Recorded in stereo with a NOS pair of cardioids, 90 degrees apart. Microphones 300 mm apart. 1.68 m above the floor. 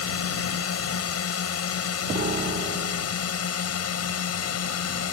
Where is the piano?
30° right.